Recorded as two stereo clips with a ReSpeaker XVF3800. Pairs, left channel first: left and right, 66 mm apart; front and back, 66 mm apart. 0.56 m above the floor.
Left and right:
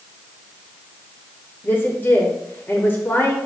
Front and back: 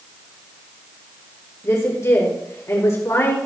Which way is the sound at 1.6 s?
35° left.